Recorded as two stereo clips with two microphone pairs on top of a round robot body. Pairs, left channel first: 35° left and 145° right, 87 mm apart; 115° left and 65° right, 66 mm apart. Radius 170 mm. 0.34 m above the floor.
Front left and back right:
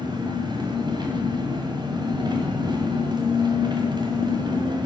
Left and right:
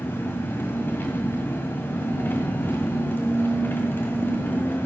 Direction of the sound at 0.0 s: 175° left.